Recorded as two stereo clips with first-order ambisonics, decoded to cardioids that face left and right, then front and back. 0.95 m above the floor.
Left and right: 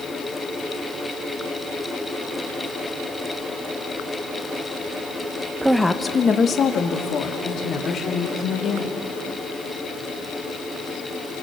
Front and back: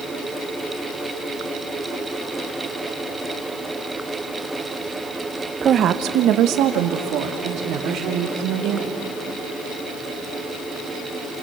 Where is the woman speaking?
155° right, 0.6 m; by 9.1 s 140° left, 4 m.